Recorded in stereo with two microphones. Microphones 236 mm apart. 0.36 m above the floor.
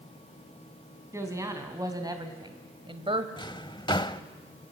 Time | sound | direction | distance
1.1 | a woman speaking | 10° right (ahead or behind) | 3 m
3.4 | a drawer | 20° left (ahead or behind) | 0.9 m